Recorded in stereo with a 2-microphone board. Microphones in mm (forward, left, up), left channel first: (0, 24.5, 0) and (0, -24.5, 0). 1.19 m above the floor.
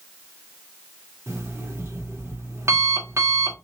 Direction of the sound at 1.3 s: 70° right (ahead or behind).